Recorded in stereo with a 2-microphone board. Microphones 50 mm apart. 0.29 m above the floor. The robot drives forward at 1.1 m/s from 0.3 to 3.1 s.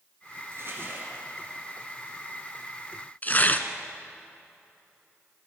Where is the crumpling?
55° right (ahead or behind), 3 m; by 1.2 s 45° right (ahead or behind), 3.5 m.